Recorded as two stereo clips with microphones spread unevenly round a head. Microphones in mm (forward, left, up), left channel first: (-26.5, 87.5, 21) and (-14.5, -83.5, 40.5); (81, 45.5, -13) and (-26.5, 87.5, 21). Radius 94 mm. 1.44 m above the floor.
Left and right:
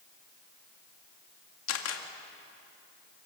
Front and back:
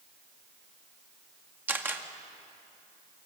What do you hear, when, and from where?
1.7 s a camera shutter: 85° left, 2 m